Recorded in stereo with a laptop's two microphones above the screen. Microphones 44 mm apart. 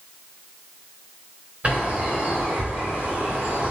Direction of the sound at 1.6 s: 30° right (ahead or behind).